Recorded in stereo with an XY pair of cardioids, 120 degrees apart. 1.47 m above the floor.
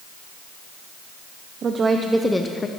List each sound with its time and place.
1.6 s a woman speaking: 45° right, 0.8 m; by 2.7 s 25° left, 0.8 m